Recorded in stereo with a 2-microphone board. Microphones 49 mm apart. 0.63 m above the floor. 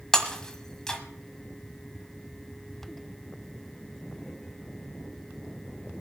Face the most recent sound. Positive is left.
turn(degrees=15)  # may be behind; listen again after turning